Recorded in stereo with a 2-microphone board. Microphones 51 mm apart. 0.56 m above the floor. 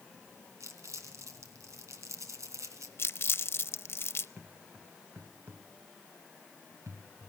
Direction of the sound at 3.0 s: 55° left (ahead or behind).